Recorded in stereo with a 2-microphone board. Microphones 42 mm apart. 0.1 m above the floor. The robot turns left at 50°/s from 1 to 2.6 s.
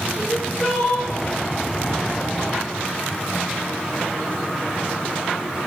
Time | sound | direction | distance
0.2 | crying | 10° left (ahead or behind) | 4.5 m